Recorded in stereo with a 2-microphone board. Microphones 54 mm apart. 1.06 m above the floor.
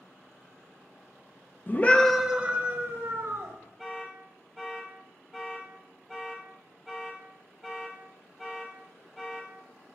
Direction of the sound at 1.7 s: 35° left (ahead or behind).